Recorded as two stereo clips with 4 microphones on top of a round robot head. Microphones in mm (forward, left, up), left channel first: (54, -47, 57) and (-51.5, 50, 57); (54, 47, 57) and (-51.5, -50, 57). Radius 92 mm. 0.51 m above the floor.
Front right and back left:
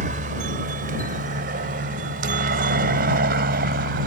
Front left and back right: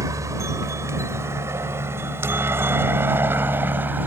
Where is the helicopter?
155° left; by 4.1 s 145° left.